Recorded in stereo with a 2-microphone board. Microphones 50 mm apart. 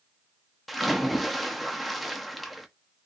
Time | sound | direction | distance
0.7 | a splash | centre (ahead or behind) | 0.5 m